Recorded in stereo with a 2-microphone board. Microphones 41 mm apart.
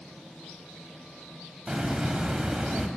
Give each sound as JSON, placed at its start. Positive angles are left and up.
{"t": 1.7, "sound": "a hiss", "side_deg": -15, "distance_m": 1.1}